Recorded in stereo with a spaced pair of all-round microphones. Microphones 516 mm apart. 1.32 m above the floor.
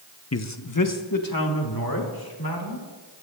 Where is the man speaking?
30° left (ahead or behind), 0.5 m; by 2.9 s 45° left (ahead or behind), 2.5 m.